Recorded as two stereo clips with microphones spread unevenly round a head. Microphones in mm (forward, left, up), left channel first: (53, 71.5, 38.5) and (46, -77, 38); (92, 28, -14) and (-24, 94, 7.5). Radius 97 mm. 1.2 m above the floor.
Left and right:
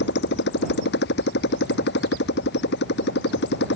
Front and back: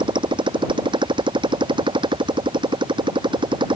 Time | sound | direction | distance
0.0 | a motorcycle | 95° left | ?